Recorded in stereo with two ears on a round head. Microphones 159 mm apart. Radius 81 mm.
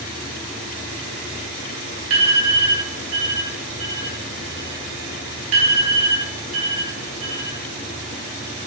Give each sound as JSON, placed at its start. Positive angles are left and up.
{"t": 2.1, "sound": "an alarm", "side_deg": -75, "distance_m": 3.0}